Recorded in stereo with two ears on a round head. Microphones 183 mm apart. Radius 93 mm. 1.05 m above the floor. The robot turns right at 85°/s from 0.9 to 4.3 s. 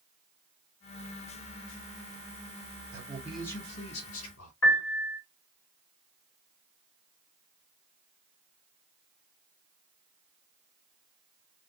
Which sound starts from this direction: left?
A piano, at 4.6 s.